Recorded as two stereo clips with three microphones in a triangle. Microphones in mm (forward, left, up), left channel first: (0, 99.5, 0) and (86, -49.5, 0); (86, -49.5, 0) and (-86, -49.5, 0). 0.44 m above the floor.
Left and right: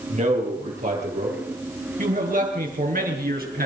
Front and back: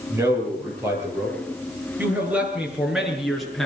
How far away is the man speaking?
About 9.5 m.